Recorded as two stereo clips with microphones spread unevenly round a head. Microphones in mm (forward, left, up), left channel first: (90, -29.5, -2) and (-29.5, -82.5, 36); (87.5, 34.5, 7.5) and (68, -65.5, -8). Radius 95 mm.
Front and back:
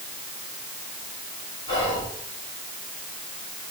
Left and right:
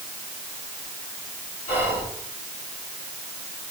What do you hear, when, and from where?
1.7 s whispering: 75° left, 4 m